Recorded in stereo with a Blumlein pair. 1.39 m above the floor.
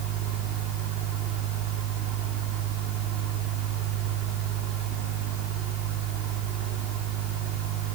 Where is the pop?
No pop in this recording.